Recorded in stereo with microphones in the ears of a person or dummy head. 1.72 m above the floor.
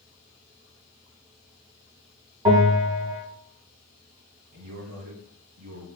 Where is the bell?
25° right (ahead or behind), 1.4 m.